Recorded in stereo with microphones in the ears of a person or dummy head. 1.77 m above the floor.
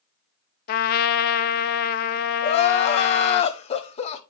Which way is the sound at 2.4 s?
30° left (ahead or behind).